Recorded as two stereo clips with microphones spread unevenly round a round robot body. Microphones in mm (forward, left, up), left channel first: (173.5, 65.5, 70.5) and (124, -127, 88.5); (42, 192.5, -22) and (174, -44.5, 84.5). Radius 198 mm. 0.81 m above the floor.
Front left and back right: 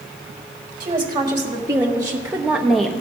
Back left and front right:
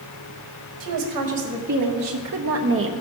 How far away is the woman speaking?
About 2 m.